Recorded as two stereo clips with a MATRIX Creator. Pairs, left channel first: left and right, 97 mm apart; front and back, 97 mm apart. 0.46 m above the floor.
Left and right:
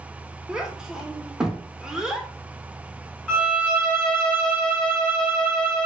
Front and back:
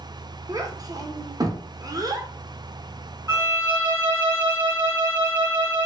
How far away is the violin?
About 1.7 m.